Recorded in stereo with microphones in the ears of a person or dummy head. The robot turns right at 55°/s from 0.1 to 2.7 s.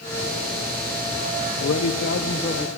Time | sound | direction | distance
1.6 | a man speaking | 95° left | 0.9 m